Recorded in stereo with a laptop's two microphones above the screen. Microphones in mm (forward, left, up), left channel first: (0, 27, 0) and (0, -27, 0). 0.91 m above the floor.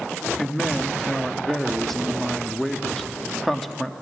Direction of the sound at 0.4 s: 5° left (ahead or behind).